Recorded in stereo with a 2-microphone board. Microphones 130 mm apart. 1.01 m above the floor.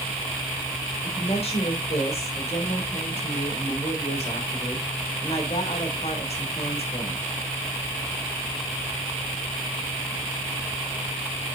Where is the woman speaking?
55° left (ahead or behind), 3 m.